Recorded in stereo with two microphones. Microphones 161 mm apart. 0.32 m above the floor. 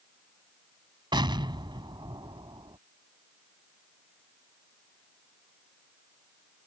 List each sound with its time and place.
1.1 s an explosion: 30° right (ahead or behind)